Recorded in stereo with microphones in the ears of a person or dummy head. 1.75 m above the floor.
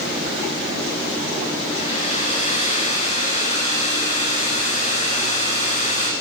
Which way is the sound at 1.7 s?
45° left (ahead or behind).